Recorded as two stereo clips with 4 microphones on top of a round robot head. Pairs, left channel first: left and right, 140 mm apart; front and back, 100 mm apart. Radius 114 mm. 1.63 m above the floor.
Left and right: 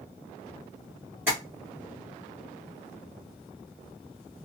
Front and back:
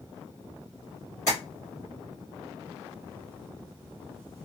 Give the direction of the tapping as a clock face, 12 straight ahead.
1 o'clock.